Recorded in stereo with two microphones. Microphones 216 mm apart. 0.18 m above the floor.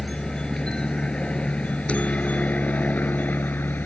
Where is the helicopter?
5° left (ahead or behind); by 3.9 s 10° left (ahead or behind).